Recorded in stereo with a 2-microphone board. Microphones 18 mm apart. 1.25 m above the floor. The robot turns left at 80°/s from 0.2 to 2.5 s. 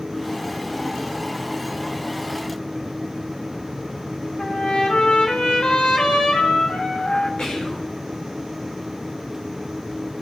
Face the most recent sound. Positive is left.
turn(degrees=50)  # may be behind; listen again after turning